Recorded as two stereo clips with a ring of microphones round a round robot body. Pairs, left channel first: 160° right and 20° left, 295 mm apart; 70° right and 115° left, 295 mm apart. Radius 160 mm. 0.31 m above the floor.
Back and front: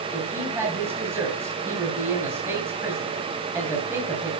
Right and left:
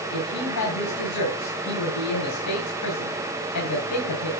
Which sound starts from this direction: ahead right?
A woman speaking, at 0.1 s.